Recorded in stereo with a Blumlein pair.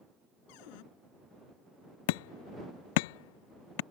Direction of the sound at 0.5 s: 45° left.